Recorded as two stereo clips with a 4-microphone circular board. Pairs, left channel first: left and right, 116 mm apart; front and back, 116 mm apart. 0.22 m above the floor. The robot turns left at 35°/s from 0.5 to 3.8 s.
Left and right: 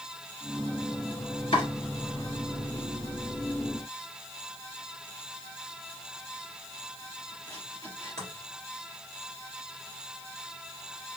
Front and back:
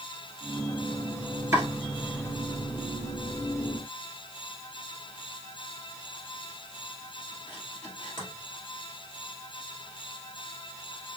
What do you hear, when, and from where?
1.5 s chopping: 115° left, 2.5 m; by 8.3 s 35° left, 2.5 m